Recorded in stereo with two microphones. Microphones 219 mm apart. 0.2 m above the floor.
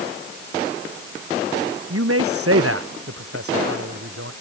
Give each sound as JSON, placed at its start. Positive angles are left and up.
{"t": 1.9, "sound": "a man speaking", "side_deg": -75}